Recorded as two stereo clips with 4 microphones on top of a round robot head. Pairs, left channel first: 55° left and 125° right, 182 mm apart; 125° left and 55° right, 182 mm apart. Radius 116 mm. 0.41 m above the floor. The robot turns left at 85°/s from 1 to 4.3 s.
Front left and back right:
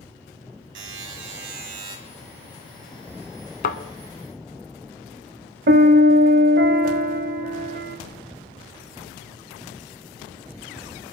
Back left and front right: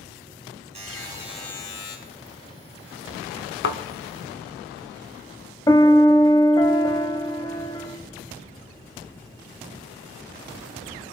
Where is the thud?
100° left, 0.9 m; by 3.8 s 85° left, 0.9 m.